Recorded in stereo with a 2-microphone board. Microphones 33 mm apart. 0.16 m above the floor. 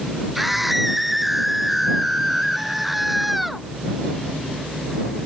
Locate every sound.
0.3 s a scream: 5° right (ahead or behind)